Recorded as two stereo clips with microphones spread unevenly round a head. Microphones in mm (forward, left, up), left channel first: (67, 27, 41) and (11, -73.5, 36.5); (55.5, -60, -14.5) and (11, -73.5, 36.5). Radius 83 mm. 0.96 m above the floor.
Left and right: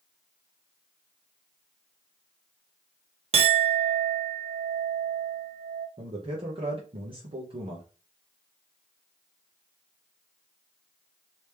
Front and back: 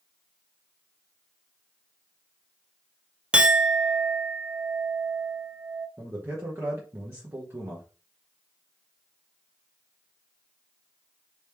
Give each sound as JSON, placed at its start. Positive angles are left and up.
{"t": 3.3, "sound": "a clink", "azimuth_deg": -85, "distance_m": 0.6}
{"t": 6.0, "sound": "a man speaking", "azimuth_deg": -90, "distance_m": 1.2}